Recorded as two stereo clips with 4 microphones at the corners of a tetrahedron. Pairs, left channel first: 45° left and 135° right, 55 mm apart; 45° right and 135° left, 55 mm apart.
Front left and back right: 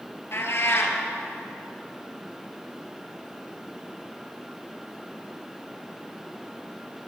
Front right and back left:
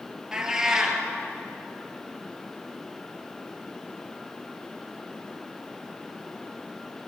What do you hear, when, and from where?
0.3 s a cat meowing: 60° left, 1.9 m